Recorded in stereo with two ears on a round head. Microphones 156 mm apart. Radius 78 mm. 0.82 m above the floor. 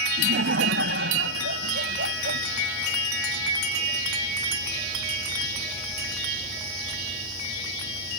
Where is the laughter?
65° right (ahead or behind).